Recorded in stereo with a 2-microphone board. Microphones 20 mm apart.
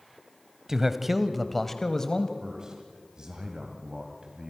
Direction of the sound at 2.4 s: 35° right (ahead or behind).